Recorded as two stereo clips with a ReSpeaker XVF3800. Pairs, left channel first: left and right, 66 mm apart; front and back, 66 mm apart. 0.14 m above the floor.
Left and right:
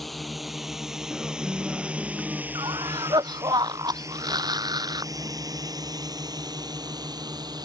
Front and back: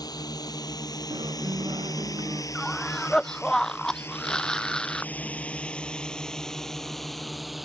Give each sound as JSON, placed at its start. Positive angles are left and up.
{"t": 0.0, "sound": "a drone", "azimuth_deg": 0}
{"t": 1.1, "sound": "a guitar", "azimuth_deg": 180}
{"t": 2.5, "sound": "a cough", "azimuth_deg": -80}